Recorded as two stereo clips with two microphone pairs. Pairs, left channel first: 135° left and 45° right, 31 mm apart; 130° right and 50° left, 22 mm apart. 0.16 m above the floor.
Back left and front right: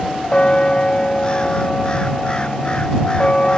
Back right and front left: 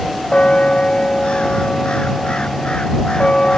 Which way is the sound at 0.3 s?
170° right.